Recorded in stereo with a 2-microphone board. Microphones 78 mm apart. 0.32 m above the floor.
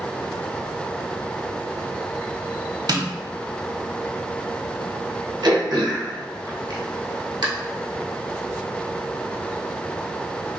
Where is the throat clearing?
55° right (ahead or behind), 1.5 m.